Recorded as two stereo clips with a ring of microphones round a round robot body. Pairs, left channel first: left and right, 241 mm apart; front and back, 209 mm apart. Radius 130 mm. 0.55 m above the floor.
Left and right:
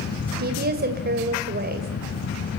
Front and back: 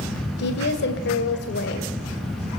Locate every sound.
0.4 s a woman speaking: 40° right, 2 m